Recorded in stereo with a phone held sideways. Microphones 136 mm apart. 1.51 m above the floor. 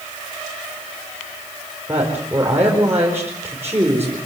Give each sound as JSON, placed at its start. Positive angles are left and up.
{"t": 1.9, "sound": "a woman speaking", "side_deg": -20, "distance_m": 4.5}